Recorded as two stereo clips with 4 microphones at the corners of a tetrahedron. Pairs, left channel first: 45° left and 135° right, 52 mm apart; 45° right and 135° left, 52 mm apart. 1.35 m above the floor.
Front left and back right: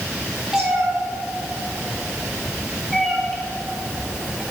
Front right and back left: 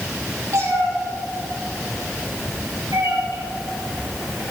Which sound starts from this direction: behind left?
A cat meowing, at 0.5 s.